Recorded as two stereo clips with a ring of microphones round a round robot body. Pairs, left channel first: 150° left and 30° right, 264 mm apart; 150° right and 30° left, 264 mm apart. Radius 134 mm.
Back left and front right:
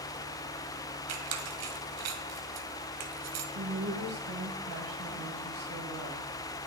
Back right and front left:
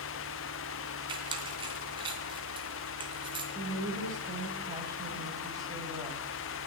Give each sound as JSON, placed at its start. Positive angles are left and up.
{"t": 1.1, "sound": "a squeak", "azimuth_deg": -40, "distance_m": 1.6}
{"t": 3.5, "sound": "a woman speaking", "azimuth_deg": -45, "distance_m": 2.5}